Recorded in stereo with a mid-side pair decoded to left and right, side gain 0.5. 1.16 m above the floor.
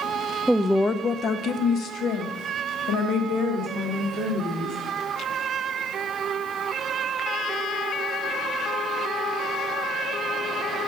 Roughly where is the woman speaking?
Ahead.